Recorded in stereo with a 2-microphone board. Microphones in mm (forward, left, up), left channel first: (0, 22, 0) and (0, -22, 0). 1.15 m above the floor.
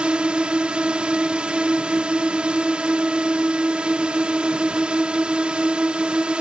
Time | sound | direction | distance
0.0 | a drone | 25° right (ahead or behind) | ?